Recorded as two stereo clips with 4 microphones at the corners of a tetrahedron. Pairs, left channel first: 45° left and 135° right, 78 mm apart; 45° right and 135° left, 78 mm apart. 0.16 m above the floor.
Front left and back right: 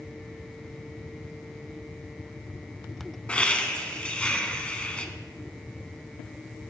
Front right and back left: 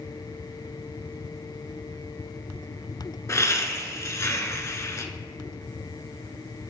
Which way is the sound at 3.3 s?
25° right.